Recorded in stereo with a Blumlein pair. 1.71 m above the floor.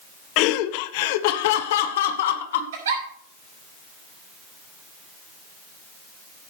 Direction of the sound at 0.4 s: 40° left.